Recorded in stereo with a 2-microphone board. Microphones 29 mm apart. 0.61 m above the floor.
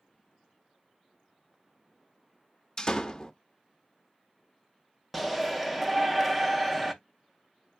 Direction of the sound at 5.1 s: Centre (ahead or behind).